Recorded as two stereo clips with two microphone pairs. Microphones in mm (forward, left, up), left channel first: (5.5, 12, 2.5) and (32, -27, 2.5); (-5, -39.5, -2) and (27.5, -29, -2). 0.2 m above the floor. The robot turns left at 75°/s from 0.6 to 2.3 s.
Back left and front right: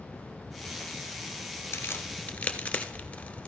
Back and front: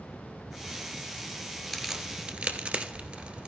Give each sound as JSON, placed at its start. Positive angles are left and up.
{"t": 1.7, "sound": "a crack", "azimuth_deg": 110, "distance_m": 1.2}